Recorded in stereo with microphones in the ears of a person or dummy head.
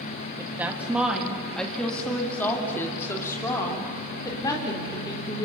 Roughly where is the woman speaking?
Centre.